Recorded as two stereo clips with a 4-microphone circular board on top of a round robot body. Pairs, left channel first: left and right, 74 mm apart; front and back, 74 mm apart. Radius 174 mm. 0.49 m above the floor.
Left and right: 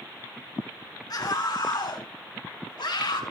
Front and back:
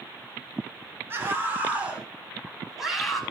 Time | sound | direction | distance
1.1 | a scream | 120° left | 4 m